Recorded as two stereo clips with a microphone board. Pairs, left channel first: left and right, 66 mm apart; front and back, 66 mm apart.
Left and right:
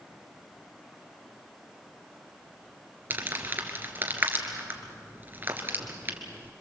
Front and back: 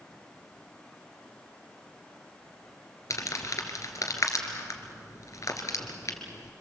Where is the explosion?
No explosion in this recording.